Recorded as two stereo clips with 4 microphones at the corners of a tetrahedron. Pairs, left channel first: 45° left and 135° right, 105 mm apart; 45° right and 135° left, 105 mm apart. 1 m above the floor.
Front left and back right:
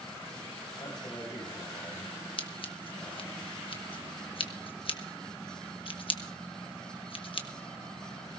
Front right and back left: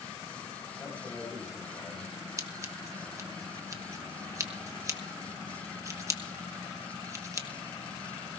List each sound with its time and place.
0.8 s a man speaking: 15° left, 6.5 m
2.4 s scissors: 75° left, 1.2 m